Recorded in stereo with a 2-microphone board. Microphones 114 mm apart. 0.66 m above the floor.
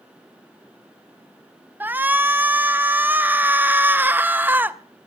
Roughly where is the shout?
Centre.